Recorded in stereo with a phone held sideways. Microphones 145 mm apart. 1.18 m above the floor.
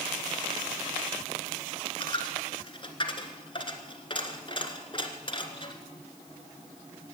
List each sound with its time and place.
2.0 s a dropped coin: 35° left (ahead or behind), 1.6 m